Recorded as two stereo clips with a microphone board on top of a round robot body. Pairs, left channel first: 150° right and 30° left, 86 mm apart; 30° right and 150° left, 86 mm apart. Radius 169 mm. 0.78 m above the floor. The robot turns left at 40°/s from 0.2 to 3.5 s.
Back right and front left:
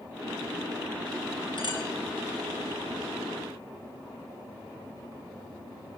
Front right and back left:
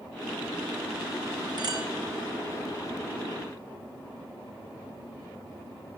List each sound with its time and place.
1.6 s a clink: 170° right, 5.5 m; by 1.9 s straight behind, 5.5 m